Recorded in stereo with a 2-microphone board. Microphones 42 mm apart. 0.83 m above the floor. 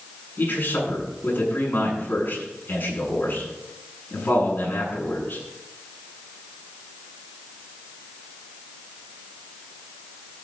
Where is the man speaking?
45° left (ahead or behind), 8.5 m.